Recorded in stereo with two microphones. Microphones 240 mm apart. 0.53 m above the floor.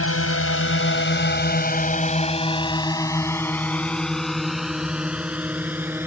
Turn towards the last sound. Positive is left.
turn(degrees=-10)  # may be behind; listen again after turning